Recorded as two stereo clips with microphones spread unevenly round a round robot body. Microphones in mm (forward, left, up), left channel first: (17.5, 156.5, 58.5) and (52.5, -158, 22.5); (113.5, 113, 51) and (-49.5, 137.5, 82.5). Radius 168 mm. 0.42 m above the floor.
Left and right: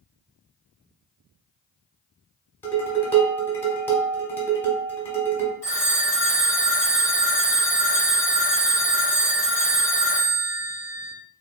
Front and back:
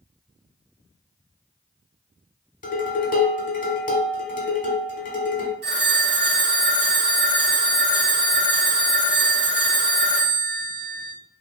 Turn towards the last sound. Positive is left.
turn(degrees=180)